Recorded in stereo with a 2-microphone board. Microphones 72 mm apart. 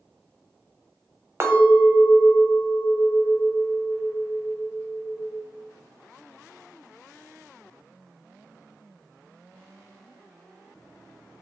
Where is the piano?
I don't hear a piano.